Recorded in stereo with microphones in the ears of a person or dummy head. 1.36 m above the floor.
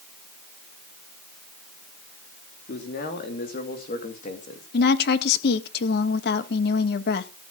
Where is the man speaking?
50° left (ahead or behind), 3.5 m; by 4.7 s 35° left (ahead or behind), 2.5 m.